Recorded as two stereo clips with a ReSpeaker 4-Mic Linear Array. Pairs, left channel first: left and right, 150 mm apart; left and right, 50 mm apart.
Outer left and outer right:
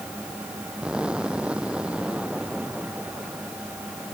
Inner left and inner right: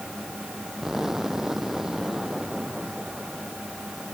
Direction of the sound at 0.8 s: 5° right (ahead or behind).